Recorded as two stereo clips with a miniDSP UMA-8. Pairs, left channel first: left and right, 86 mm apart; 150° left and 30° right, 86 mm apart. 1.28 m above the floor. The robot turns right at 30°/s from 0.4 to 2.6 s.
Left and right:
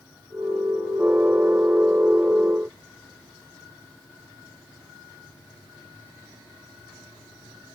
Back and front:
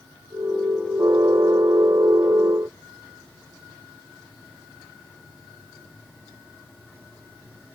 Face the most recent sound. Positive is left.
No sound to turn to.